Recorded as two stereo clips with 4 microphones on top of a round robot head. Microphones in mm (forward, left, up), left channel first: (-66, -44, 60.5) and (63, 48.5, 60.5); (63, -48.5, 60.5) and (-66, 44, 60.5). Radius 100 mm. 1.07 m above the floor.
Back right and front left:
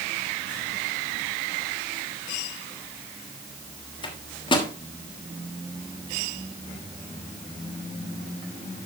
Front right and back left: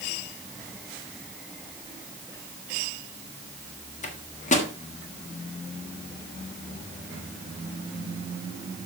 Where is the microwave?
85° right, 1.3 m.